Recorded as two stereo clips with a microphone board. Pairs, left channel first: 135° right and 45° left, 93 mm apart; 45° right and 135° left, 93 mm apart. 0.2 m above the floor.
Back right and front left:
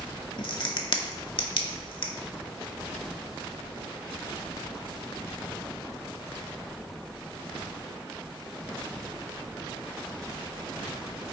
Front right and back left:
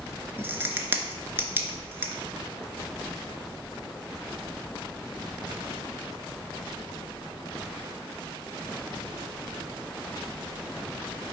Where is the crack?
160° right, 0.5 m.